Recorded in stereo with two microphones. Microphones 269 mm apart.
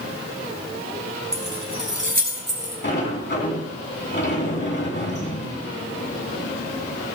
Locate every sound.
1.3 s keys jangling: 10° right (ahead or behind), 3 m; by 2.7 s 45° right (ahead or behind), 4 m
2.8 s a sliding door: 45° left (ahead or behind), 3 m